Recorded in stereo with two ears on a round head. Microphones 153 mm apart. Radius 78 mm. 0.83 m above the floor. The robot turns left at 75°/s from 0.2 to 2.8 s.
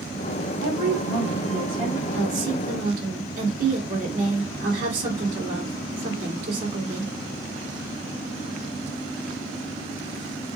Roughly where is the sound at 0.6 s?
Ahead left.